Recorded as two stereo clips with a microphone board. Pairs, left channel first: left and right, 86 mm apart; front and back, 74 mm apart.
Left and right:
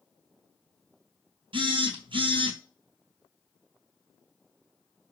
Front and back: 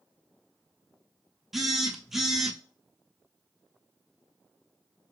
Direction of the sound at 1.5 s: 95° right.